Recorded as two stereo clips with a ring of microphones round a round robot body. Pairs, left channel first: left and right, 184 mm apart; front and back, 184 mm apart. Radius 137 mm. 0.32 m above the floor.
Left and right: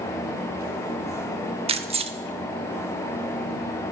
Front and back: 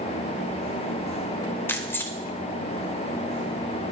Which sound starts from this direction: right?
Keys jangling, at 1.7 s.